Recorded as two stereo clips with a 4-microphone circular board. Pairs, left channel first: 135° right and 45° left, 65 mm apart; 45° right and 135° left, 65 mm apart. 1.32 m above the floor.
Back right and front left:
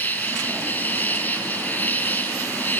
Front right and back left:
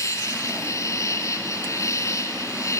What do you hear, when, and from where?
0.0 s an insect: 75° right, 2.5 m